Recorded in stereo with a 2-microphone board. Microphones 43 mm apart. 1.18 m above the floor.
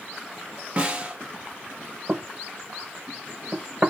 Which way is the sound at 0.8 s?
30° right (ahead or behind).